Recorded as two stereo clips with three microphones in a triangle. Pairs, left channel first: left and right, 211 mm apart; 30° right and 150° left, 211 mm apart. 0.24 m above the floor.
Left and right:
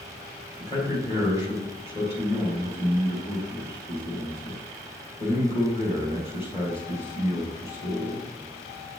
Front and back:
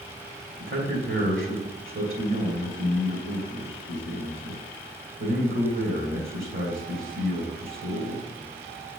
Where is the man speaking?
155° left, 3 m.